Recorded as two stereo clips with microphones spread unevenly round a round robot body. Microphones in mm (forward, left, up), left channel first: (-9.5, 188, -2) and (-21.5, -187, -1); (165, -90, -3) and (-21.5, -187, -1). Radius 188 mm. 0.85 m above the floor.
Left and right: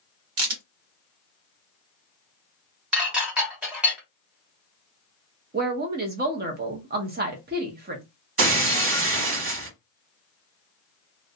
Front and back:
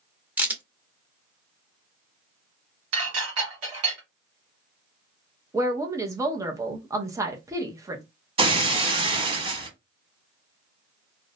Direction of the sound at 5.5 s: 95° right.